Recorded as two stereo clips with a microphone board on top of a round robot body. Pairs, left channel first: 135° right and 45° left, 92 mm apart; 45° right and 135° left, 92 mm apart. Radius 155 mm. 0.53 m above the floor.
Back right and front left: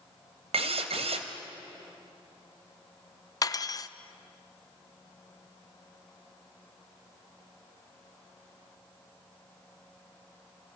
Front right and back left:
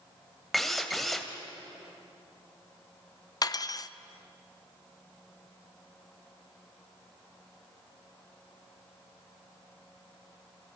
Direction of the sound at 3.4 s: 90° right.